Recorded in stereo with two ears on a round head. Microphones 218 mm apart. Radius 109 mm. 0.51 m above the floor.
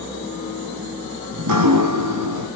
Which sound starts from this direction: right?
Dripping, at 1.3 s.